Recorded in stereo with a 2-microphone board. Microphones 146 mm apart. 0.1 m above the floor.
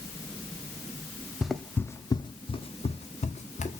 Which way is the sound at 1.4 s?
5° right (ahead or behind).